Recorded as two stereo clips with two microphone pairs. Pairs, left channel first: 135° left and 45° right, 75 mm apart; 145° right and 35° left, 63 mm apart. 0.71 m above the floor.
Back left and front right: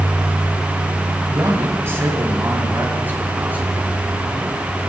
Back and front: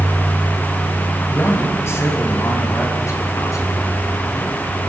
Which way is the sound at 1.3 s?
95° right.